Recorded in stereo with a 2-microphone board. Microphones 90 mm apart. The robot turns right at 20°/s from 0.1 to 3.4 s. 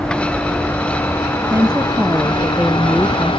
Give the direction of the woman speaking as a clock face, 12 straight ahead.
1 o'clock.